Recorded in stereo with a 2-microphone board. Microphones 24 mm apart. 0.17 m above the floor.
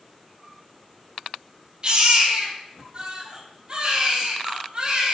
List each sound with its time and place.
1.8 s a baby crying: 40° right (ahead or behind), 1.8 m